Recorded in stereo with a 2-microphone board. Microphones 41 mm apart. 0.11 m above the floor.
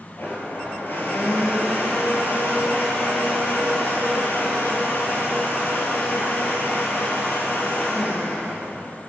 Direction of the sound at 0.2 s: 55° left (ahead or behind).